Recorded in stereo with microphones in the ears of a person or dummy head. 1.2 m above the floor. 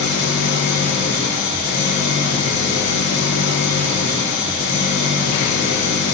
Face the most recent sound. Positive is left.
turn(degrees=85)